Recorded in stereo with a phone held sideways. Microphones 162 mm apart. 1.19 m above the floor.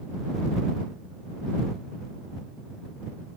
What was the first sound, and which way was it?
Only background noise.